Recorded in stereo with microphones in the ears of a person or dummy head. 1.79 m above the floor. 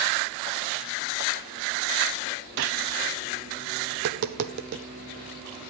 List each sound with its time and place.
2.6 s a gunshot: 55° right (ahead or behind), 0.9 m
3.9 s tapping: 50° right (ahead or behind), 0.7 m